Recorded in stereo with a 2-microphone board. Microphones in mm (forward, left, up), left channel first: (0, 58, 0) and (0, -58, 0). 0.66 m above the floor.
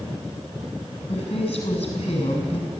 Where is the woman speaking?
75° left (ahead or behind), 6.5 m.